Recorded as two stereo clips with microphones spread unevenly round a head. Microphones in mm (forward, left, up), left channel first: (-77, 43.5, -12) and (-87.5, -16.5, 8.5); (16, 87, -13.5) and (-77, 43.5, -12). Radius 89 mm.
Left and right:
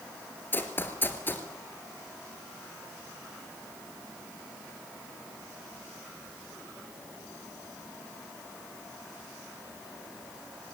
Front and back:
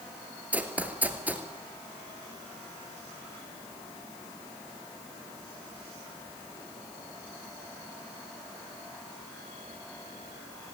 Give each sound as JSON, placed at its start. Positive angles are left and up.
{"t": 0.5, "sound": "running footsteps", "azimuth_deg": 145, "distance_m": 1.8}